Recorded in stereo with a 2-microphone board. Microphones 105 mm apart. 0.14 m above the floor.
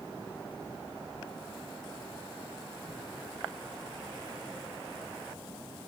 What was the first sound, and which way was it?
Only background noise.